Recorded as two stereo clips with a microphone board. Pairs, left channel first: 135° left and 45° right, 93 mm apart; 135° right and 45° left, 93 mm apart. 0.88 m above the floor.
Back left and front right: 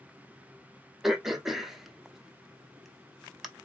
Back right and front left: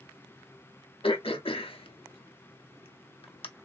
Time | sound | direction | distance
1.0 | throat clearing | 135° right | 0.6 m